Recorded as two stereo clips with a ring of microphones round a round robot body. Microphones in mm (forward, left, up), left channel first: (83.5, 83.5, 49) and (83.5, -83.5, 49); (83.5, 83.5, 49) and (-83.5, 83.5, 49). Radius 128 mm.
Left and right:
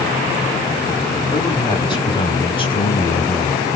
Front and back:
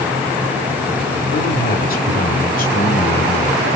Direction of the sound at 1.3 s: 25° left.